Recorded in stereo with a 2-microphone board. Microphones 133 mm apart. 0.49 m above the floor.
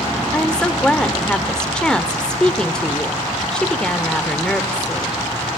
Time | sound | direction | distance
0.3 | a woman speaking | 5° left (ahead or behind) | 1.2 m